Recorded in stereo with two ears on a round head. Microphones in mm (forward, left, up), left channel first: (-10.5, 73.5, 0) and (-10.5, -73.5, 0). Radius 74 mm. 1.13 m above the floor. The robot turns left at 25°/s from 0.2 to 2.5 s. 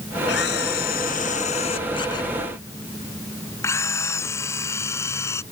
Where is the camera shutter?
70° left; by 5.4 s 15° left.